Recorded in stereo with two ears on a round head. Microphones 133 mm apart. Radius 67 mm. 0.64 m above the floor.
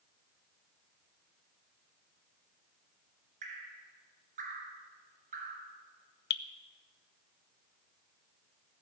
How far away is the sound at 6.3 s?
About 0.7 m.